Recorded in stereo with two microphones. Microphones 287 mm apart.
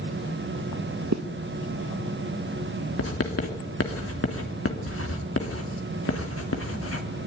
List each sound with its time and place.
1.1 s a zipper: 60° right (ahead or behind), 1.3 m
3.0 s writing: 45° left (ahead or behind), 3 m